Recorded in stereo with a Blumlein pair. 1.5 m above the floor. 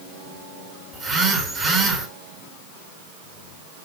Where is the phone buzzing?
20° right, 2.5 m.